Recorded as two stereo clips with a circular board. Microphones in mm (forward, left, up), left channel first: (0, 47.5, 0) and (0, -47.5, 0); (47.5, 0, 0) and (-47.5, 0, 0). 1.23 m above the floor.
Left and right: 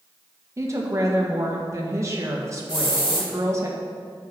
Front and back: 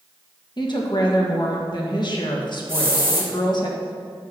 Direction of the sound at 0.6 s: 35° right.